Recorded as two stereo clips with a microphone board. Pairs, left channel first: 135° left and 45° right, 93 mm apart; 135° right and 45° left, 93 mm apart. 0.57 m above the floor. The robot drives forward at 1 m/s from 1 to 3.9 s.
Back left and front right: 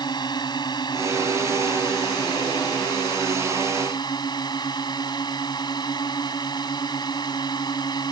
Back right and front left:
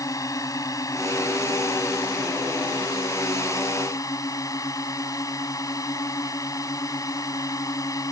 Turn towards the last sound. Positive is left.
turn(degrees=175)